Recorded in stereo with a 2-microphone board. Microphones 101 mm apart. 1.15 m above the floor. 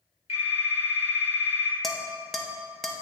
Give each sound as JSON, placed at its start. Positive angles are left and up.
{"t": 0.3, "sound": "a phone ringing", "side_deg": 85, "distance_m": 2.0}
{"t": 1.8, "sound": "dishes clattering", "side_deg": 5, "distance_m": 0.8}